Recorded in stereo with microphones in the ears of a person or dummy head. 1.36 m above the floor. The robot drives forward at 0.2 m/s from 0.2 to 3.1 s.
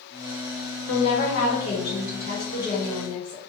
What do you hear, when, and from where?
0.9 s a woman speaking: 60° left (ahead or behind), 0.9 m; by 3.4 s 45° left (ahead or behind), 1.2 m